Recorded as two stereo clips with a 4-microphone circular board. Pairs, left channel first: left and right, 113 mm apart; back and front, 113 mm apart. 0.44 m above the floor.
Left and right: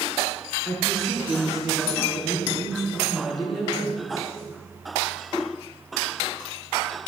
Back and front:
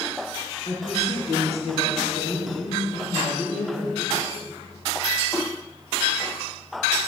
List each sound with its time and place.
0.7 s a woman speaking: straight behind, 4.5 m